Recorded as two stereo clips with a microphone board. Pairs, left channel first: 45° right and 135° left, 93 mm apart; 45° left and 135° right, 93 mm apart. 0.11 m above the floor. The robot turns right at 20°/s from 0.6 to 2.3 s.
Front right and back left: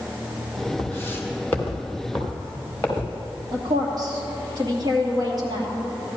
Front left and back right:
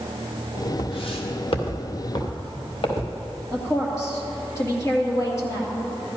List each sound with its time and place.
0.8 s footsteps: 20° left, 2 m; by 3.4 s 30° left, 3.5 m
3.5 s a woman speaking: 100° left, 2.5 m